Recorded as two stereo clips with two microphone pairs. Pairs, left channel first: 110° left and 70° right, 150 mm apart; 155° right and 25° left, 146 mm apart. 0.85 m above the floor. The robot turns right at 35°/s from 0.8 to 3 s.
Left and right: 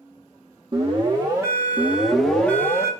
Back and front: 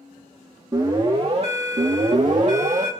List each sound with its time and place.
0.7 s an alarm: 30° right, 2.0 m; by 2.9 s 45° left, 2.0 m